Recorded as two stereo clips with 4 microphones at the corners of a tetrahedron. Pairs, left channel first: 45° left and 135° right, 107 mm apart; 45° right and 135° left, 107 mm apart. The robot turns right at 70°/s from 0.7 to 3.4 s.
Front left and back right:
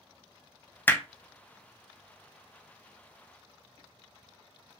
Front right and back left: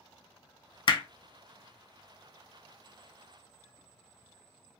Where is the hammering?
25° right, 0.5 m; by 1.0 s 10° right, 0.5 m.